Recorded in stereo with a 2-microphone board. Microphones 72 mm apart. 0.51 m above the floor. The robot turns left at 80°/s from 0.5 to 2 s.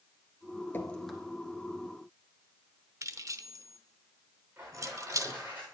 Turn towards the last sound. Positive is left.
turn(degrees=-25)  # may be behind; listen again after turning